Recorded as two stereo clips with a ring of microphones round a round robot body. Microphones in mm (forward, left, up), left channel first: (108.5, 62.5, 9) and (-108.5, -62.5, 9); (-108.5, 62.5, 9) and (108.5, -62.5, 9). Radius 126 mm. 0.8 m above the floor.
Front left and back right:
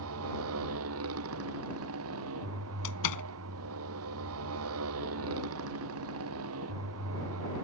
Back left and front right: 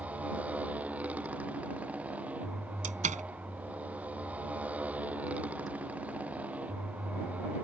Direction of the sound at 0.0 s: 115° right.